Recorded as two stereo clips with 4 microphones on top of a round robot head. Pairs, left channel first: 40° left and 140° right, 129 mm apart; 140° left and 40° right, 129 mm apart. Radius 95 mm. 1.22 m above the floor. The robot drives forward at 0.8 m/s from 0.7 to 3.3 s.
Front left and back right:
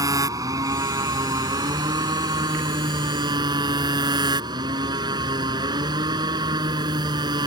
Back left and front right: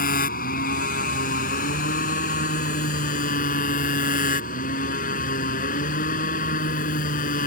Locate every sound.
0.0 s a motorcycle: 155° left; by 7.5 s 160° left